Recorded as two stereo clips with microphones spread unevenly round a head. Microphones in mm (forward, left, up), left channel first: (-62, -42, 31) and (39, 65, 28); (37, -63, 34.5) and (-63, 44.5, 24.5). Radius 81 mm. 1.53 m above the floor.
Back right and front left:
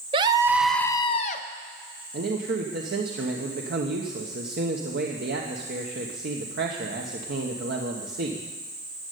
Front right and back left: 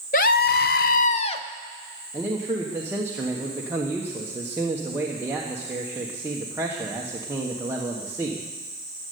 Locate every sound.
0.1 s a scream: 10° right, 0.8 m; by 1.4 s 100° right, 0.8 m
2.1 s a man speaking: 60° left, 1.2 m